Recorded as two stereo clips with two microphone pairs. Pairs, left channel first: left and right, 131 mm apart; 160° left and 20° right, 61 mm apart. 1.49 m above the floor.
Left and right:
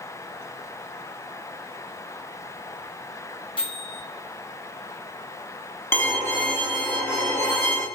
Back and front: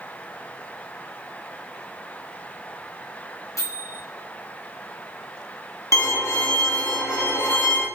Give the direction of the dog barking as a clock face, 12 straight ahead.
No dog barking in this recording.